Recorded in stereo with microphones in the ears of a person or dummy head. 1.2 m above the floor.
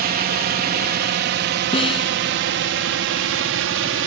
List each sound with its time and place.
0.0 s a drone: 45° right (ahead or behind); by 4.1 s 65° right (ahead or behind)
1.7 s a snare drum: 30° left (ahead or behind)